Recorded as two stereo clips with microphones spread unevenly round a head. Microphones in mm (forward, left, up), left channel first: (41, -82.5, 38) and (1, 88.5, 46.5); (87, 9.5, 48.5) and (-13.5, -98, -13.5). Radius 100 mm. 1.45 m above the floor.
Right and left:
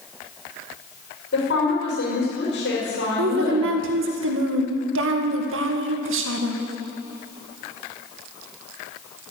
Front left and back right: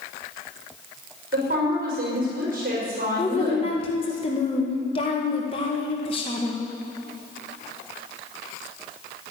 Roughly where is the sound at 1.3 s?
Right.